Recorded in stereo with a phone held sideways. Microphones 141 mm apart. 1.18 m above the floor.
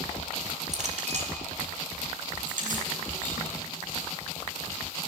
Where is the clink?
55° right (ahead or behind), 2 m.